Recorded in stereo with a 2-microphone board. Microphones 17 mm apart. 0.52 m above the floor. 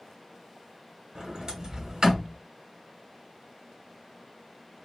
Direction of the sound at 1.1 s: 45° right (ahead or behind).